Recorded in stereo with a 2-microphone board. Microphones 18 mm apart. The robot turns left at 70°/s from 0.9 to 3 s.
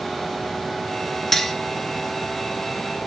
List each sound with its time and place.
1.3 s cutlery clinking: 15° left (ahead or behind), 0.7 m; by 1.6 s 10° left (ahead or behind), 0.7 m